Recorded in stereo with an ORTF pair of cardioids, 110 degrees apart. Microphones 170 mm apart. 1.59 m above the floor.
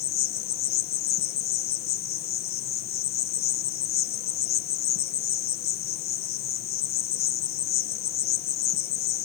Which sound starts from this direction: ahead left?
An insect, at 0.0 s.